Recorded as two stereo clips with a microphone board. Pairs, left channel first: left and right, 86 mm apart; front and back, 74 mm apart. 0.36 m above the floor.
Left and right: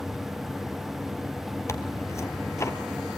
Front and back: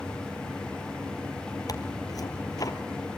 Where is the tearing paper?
35° left, 1.8 m.